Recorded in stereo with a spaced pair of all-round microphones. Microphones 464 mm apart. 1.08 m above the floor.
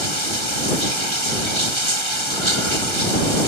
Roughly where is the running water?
Right.